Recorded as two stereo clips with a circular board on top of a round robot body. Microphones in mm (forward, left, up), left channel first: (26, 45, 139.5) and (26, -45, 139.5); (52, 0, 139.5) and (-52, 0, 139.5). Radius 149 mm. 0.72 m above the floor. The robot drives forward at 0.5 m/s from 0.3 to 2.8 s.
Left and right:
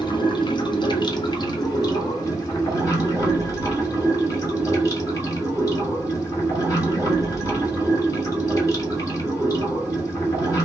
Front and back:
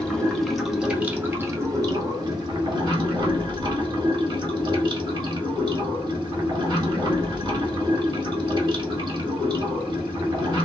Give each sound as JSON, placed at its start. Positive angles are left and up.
{"t": 0.0, "sound": "running water", "azimuth_deg": 85, "distance_m": 1.1}